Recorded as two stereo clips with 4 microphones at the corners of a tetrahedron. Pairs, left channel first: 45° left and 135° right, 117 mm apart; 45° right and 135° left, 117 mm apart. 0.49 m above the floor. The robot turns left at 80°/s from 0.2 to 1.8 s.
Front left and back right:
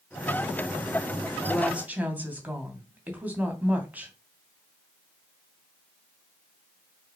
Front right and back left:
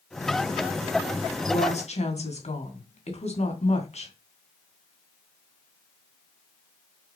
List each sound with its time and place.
1.5 s a woman speaking: 35° right, 3 m; by 4.1 s 60° right, 3 m